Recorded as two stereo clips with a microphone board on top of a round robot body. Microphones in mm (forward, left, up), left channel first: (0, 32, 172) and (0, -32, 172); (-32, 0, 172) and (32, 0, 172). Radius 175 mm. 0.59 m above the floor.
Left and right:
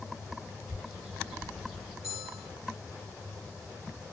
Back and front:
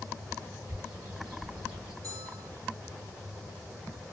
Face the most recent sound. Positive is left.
turn(degrees=-10)